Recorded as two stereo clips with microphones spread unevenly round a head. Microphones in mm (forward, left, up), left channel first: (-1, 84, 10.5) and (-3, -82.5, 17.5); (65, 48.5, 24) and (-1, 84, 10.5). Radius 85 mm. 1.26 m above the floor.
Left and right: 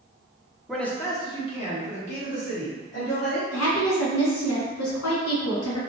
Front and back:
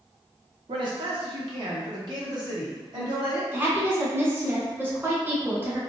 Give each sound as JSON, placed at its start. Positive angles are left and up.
{"t": 0.7, "sound": "a man speaking", "azimuth_deg": 180, "distance_m": 0.7}
{"t": 3.5, "sound": "a woman speaking", "azimuth_deg": 90, "distance_m": 1.5}